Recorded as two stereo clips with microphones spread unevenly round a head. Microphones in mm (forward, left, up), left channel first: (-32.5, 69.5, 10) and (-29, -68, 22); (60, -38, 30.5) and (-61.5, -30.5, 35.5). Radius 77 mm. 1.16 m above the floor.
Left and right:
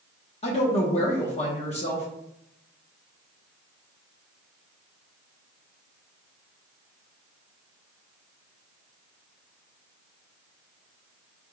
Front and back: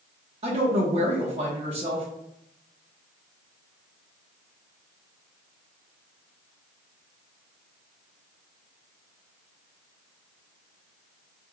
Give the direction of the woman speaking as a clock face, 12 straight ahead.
8 o'clock.